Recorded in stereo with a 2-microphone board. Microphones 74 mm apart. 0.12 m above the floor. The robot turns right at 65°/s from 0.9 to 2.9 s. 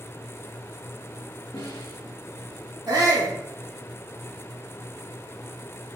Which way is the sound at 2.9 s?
60° right (ahead or behind).